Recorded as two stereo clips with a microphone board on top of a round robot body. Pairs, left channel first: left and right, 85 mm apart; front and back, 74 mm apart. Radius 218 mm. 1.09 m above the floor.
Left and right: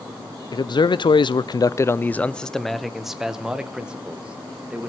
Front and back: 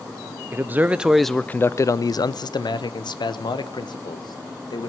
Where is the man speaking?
120° left, 0.7 m; by 4.9 s 15° right, 1.8 m.